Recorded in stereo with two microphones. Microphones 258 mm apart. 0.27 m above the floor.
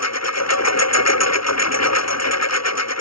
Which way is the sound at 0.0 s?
85° left.